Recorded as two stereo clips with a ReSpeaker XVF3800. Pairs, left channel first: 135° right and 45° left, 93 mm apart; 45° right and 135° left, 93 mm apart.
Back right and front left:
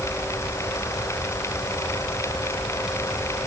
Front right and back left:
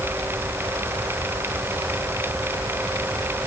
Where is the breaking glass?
I don't hear breaking glass.